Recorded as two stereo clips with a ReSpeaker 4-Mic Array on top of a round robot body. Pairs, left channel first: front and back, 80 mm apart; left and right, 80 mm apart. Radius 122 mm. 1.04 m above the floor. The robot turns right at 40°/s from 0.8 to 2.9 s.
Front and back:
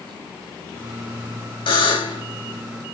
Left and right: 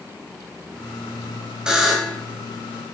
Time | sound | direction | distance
1.7 | a buzzer | 10° right | 7 m